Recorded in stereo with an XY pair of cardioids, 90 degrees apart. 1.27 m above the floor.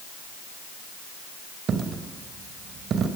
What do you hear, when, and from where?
1.7 s a dropped coin: 65° right, 3 m